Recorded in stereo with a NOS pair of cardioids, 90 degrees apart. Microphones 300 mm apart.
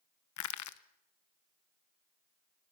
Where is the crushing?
65° left, 1.1 m.